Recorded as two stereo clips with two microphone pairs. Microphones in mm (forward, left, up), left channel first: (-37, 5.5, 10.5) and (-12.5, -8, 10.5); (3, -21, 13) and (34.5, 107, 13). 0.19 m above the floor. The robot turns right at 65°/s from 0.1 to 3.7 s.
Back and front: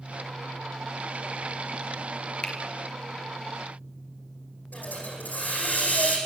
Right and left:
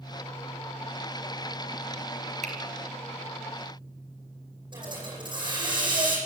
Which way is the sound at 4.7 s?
130° left.